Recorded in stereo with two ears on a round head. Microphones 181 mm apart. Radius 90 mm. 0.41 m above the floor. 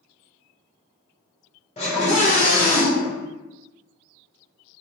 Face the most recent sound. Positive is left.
turn(degrees=30)  # may be behind; listen again after turning